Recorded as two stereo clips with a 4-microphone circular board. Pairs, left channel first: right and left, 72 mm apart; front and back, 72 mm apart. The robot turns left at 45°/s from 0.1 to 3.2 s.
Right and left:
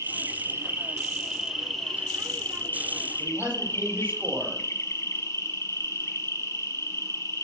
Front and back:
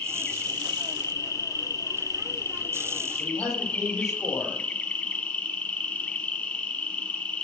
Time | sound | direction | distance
0.0 | an insect | 75° left | 1.7 m
3.2 | a man speaking | 25° left | 6 m